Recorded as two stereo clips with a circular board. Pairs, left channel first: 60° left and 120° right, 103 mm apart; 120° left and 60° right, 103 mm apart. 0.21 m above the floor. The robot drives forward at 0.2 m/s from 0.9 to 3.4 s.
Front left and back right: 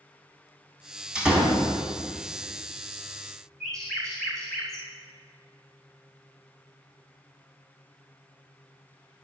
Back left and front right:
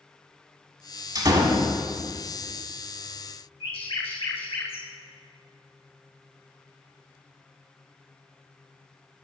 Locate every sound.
1.1 s a door slam: 45° right, 1.3 m; by 1.7 s 50° right, 1.2 m
3.6 s a bird: 145° left, 2 m